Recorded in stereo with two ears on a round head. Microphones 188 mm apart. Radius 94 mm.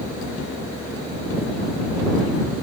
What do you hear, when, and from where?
Only background noise.